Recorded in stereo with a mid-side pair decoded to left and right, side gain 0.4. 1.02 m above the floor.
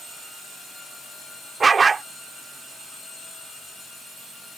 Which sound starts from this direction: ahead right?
A dog barking, at 1.6 s.